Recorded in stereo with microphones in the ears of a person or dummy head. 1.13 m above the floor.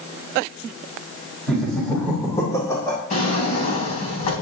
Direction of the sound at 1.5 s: Centre (ahead or behind).